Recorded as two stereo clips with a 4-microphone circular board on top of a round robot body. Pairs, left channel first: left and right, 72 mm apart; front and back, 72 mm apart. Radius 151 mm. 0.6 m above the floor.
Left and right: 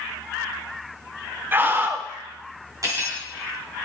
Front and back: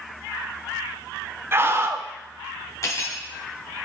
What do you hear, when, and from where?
1.5 s a scream: 140° right, 1.4 m
2.8 s cutlery clinking: 45° right, 3.5 m